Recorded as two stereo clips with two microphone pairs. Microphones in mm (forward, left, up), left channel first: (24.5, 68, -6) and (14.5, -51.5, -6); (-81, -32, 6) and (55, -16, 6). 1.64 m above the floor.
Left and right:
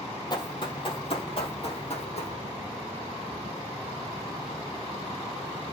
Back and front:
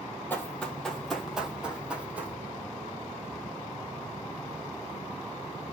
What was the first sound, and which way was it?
Running footsteps, 115° left.